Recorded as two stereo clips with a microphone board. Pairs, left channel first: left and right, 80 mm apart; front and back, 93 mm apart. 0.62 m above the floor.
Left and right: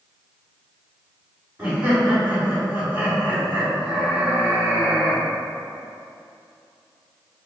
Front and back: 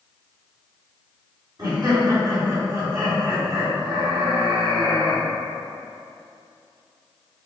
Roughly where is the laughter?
Behind.